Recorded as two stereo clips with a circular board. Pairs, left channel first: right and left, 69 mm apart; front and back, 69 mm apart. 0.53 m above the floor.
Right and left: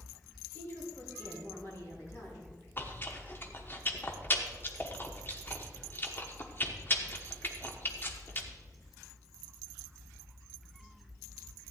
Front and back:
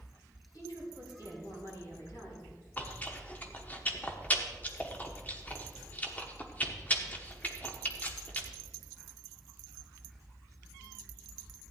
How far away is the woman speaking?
About 5.5 m.